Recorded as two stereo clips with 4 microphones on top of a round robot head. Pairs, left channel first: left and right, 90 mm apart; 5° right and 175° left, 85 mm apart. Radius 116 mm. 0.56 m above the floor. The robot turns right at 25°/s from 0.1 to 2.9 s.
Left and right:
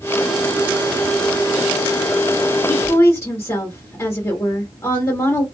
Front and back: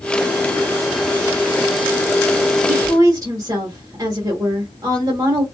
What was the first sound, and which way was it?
A woman speaking, 135° left.